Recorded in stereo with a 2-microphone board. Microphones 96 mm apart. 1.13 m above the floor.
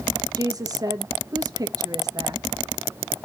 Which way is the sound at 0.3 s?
40° right (ahead or behind).